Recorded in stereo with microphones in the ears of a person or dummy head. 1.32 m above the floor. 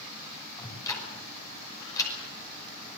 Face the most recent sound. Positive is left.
turn(degrees=20)  # may be behind; listen again after turning